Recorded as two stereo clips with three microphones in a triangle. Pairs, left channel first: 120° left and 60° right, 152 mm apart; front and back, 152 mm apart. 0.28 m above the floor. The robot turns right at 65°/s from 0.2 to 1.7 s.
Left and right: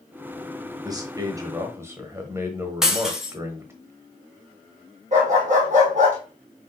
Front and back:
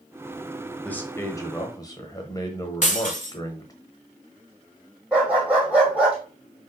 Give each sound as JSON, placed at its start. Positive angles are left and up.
{"t": 0.8, "sound": "a man speaking", "azimuth_deg": -70, "distance_m": 1.0}
{"t": 2.8, "sound": "breaking glass", "azimuth_deg": 25, "distance_m": 1.1}
{"t": 5.1, "sound": "a dog barking", "azimuth_deg": -95, "distance_m": 2.5}